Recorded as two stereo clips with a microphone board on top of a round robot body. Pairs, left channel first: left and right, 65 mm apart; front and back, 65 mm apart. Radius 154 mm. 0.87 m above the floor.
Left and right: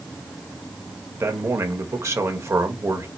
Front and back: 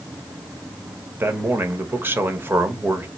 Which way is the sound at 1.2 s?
125° right.